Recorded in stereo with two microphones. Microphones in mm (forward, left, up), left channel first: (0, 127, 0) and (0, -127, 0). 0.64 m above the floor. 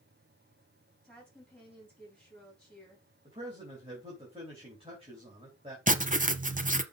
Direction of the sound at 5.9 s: 30° right (ahead or behind).